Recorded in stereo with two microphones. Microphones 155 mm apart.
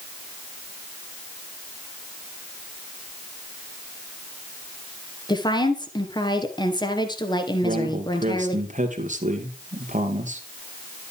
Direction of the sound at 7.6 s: 50° right (ahead or behind).